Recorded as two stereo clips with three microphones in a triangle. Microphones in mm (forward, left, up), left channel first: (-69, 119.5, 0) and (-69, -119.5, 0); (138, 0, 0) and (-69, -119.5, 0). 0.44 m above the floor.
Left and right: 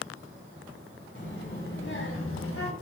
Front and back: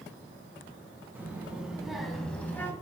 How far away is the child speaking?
About 3 m.